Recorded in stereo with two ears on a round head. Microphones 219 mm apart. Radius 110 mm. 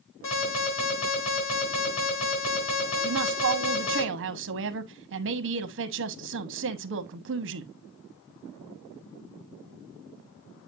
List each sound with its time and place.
0.2 s an alarm: 60° left (ahead or behind), 5.5 m
3.0 s a woman speaking: 50° right (ahead or behind), 1.0 m